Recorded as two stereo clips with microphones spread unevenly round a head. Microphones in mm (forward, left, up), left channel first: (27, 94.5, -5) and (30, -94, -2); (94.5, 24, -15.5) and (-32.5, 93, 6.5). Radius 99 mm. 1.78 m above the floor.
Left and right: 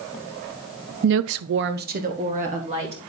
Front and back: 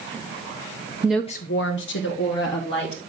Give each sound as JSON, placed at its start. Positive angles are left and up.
{"t": 1.0, "sound": "a woman speaking", "azimuth_deg": -140, "distance_m": 0.5}